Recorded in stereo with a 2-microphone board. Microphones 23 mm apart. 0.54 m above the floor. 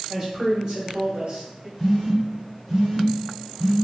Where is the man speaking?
15° right (ahead or behind), 1.5 m; by 1.7 s 35° right (ahead or behind), 1.1 m.